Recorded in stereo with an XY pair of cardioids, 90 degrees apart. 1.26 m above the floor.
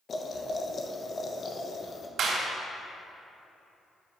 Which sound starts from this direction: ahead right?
A clap, at 2.2 s.